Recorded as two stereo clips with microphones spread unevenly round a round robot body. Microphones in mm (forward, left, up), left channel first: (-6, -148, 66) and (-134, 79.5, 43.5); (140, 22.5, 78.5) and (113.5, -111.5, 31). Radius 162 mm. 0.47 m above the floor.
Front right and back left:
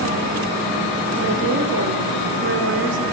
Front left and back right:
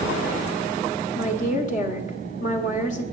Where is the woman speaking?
115° left, 1.2 m.